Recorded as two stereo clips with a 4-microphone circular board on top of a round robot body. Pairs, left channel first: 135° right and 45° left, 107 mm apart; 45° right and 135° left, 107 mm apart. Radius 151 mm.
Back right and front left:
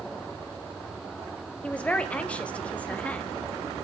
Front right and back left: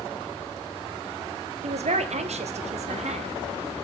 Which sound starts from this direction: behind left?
A man speaking, at 1.6 s.